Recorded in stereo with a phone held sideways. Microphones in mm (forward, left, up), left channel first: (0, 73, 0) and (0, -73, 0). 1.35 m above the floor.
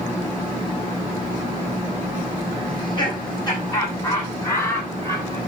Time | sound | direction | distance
2.7 | laughter | 30° left (ahead or behind) | 9 m